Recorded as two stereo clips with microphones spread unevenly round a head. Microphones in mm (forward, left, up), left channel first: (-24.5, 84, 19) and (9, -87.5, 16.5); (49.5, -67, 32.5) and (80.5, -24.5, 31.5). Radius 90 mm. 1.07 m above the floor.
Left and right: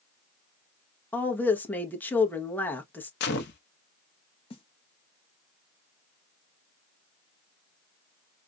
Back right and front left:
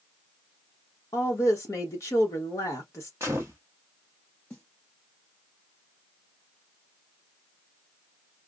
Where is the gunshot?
130° left, 0.6 m.